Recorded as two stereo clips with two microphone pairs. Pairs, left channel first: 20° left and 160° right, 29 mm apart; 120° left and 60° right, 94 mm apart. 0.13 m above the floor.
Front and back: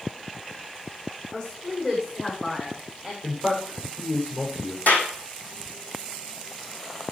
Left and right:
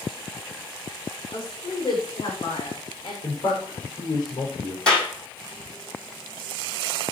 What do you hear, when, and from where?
1.3 s a woman speaking: 80° left, 7 m; by 3.1 s 90° left, 8.5 m
3.2 s a man speaking: 80° left, 7.5 m
4.9 s a clap: 40° left, 3.5 m